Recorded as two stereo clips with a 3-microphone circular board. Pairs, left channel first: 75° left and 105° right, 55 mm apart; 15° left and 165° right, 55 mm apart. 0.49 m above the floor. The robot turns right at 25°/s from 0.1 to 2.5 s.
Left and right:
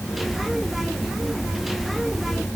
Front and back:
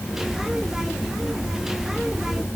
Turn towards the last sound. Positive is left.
No sound to turn to.